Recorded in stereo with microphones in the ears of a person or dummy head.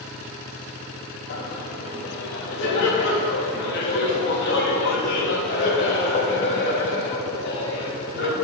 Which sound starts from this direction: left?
Laughter, at 1.3 s.